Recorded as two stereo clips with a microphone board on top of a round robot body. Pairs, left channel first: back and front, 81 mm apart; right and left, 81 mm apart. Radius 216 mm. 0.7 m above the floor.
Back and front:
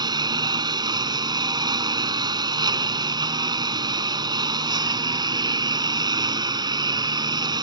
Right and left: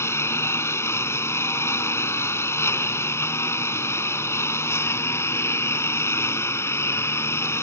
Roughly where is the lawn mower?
Ahead right.